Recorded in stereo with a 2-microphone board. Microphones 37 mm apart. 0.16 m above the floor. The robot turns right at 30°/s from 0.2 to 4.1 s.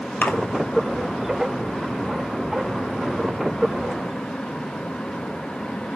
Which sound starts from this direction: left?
A splash, at 0.2 s.